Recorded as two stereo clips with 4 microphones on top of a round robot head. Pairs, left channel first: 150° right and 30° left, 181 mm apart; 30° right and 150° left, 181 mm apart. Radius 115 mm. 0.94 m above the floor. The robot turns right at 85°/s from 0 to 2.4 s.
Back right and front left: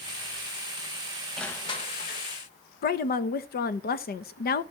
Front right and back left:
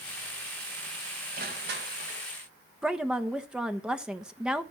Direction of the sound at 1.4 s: 120° left.